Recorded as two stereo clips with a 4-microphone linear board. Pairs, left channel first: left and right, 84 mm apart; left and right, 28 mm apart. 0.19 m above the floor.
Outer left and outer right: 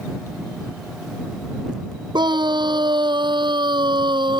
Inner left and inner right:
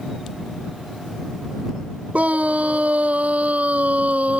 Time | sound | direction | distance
2.1 | a scream | 65° right (ahead or behind) | ?